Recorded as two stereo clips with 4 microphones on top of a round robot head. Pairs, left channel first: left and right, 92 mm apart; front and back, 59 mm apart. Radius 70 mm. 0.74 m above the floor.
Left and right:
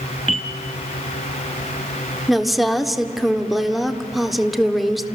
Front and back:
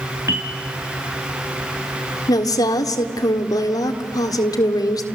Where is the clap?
I don't hear a clap.